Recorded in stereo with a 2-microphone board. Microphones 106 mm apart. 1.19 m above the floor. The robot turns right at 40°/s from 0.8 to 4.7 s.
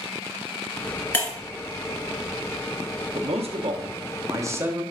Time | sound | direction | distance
1.1 | breaking glass | 20° left (ahead or behind) | 1.2 m
3.1 | a man speaking | 80° right | 0.6 m